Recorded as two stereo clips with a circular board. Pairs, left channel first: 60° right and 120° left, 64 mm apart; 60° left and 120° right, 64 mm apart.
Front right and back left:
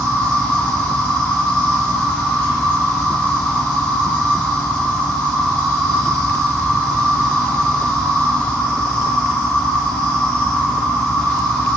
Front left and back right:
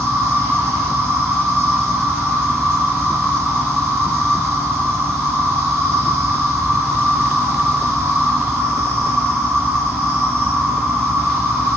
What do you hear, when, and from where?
0.0 s an insect: 5° right, 1.8 m